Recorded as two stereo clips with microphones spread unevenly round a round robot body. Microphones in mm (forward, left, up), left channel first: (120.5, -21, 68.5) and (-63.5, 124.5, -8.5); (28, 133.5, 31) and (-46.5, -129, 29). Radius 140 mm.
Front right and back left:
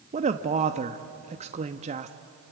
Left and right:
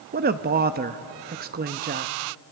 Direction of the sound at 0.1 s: 160° right.